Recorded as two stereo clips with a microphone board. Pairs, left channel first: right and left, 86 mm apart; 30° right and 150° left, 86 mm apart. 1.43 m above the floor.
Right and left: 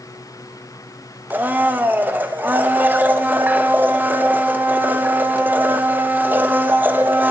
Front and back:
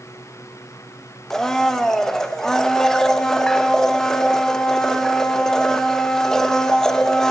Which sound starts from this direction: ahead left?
A blender, at 1.3 s.